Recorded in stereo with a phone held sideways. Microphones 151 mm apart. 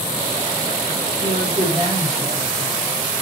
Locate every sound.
1.2 s a woman speaking: 20° right (ahead or behind), 4.5 m